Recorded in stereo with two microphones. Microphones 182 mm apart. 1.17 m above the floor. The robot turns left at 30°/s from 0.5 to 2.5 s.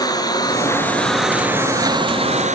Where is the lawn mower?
20° left; by 2.6 s 40° right.